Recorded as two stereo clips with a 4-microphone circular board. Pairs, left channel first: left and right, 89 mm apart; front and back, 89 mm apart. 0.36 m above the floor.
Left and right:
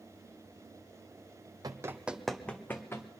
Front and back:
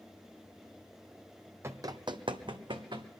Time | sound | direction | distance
1.6 | running footsteps | 125° right | 0.7 m